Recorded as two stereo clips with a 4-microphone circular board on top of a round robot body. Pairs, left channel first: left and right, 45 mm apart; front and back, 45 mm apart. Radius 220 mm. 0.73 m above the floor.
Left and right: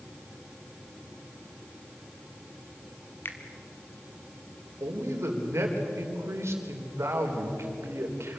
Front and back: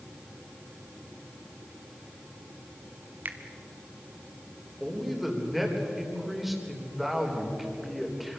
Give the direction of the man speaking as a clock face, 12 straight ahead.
3 o'clock.